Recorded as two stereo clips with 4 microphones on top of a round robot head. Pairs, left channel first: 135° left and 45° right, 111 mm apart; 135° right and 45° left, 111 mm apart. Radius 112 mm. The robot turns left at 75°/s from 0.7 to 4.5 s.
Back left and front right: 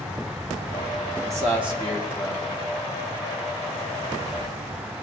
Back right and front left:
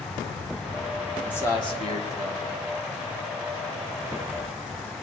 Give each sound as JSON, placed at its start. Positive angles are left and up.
{"t": 1.2, "sound": "a man speaking", "azimuth_deg": -55, "distance_m": 2.0}